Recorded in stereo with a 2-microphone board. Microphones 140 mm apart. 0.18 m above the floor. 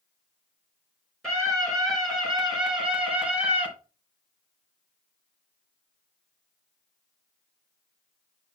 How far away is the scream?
About 2.5 m.